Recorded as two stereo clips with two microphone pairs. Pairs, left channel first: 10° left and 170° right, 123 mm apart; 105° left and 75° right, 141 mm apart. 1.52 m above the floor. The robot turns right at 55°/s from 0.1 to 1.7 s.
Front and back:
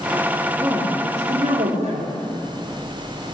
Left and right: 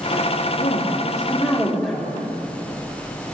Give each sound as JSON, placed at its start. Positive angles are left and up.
{"t": 0.6, "sound": "a woman speaking", "azimuth_deg": 120, "distance_m": 4.5}